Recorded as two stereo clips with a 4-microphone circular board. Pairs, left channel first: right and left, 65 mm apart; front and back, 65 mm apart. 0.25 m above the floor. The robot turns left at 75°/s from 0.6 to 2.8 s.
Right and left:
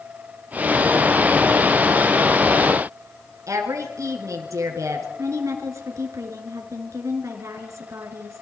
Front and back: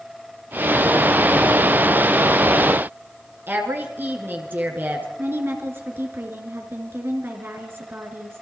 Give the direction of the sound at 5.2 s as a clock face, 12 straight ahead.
8 o'clock.